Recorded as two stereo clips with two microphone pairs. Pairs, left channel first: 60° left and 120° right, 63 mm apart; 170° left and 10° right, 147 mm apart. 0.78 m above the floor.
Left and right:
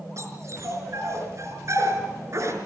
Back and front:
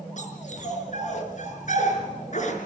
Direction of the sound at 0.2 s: 155° right.